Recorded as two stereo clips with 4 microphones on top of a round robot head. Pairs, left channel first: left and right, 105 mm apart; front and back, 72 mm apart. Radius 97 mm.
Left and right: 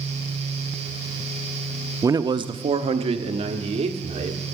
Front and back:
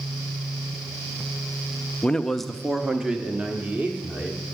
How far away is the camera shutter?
No camera shutter in this recording.